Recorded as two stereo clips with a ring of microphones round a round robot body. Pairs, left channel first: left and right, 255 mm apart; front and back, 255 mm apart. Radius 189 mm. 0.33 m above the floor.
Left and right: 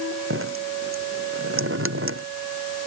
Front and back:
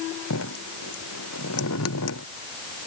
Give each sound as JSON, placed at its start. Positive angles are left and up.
{"t": 0.3, "sound": "dripping", "azimuth_deg": -50}